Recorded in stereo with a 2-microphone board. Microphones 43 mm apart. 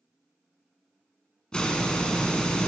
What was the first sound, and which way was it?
A hiss, 20° left (ahead or behind).